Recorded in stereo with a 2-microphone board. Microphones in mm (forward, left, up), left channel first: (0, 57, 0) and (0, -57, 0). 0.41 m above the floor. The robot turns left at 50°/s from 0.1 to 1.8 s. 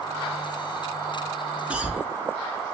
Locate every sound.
1.7 s a cough: 10° right (ahead or behind), 0.8 m